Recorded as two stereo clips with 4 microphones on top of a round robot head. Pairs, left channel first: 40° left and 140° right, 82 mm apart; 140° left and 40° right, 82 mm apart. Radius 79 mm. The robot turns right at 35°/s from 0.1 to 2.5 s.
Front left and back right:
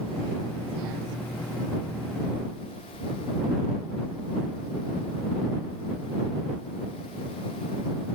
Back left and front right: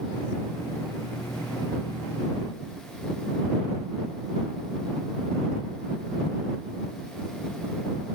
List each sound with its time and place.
Only background noise.